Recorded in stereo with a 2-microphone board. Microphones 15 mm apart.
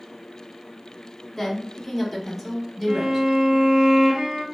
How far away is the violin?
About 0.9 m.